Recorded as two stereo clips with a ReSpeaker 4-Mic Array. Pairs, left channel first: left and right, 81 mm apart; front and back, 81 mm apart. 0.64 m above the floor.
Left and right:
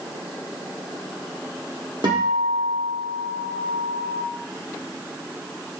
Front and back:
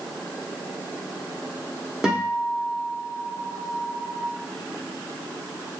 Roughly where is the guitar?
Right.